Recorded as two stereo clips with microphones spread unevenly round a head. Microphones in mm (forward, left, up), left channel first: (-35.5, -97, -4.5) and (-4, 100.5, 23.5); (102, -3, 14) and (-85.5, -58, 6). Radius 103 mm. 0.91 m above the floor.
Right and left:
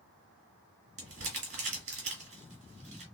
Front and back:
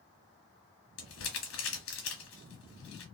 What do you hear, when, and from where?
1.0 s crumpling: 30° left, 1.9 m